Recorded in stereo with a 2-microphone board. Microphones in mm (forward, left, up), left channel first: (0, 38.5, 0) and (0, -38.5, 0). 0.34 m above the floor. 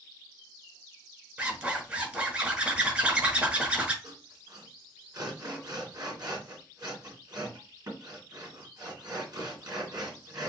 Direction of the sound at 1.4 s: 20° right (ahead or behind).